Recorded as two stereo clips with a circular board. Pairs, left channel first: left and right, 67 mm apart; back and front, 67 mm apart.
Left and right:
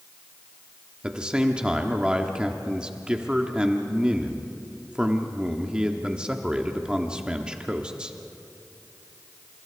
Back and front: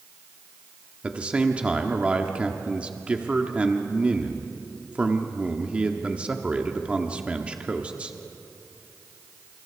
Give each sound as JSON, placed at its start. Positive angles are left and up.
{"t": 1.0, "sound": "a man speaking", "azimuth_deg": -35, "distance_m": 1.3}